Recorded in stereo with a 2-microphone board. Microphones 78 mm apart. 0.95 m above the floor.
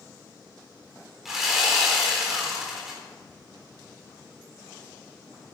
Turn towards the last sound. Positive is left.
turn(degrees=-5)  # may be behind; listen again after turning